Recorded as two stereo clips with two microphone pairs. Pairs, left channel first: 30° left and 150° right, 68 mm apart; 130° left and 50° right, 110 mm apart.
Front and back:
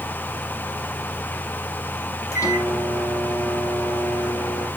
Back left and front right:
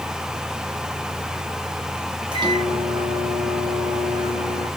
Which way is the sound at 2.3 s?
Straight ahead.